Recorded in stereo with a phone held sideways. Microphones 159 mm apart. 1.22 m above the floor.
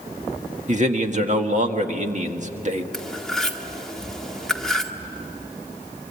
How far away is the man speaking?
About 1.7 m.